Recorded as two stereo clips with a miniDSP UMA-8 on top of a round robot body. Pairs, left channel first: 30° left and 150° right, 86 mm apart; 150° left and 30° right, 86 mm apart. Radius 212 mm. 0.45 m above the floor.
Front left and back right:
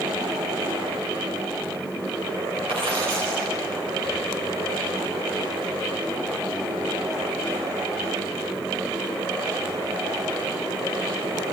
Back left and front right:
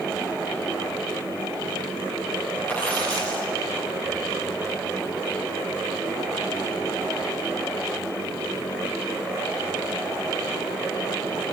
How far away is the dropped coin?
About 8 m.